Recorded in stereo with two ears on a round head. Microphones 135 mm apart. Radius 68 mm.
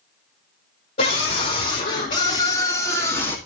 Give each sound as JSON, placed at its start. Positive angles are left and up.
{"t": 1.0, "sound": "a scream", "side_deg": 55, "distance_m": 3.0}